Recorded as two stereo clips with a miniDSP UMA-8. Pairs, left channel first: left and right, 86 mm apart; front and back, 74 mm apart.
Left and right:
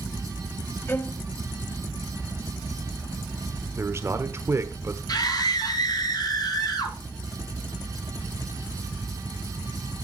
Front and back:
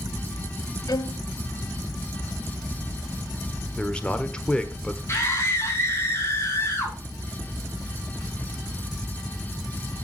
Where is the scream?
55° left, 3 m.